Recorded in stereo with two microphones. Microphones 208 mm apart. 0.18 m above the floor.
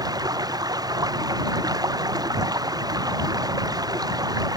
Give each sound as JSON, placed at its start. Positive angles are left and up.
{"t": 0.0, "sound": "running water", "side_deg": -20}